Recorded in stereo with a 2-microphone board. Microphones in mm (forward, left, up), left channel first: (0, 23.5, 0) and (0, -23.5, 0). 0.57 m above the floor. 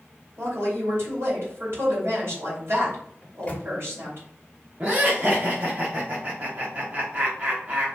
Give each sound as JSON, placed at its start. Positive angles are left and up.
{"t": 0.4, "sound": "a woman speaking", "side_deg": -65, "distance_m": 2.5}
{"t": 3.2, "sound": "a microwave", "side_deg": 25, "distance_m": 0.8}
{"t": 4.8, "sound": "laughter", "side_deg": -35, "distance_m": 0.9}